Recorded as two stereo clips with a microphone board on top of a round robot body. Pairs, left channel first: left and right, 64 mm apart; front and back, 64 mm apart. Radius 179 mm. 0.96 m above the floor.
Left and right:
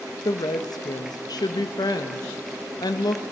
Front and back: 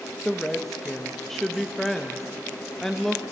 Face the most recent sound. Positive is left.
turn(degrees=85)